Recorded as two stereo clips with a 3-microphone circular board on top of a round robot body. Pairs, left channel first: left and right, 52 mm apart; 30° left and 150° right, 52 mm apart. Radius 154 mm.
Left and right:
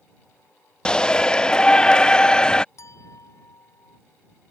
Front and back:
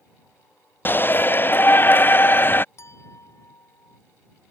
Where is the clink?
65° left.